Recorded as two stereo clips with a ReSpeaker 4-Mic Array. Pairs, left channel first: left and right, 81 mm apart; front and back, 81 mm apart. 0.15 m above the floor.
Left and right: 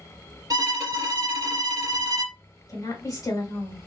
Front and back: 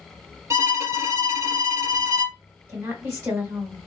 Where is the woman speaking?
125° left, 2.5 m.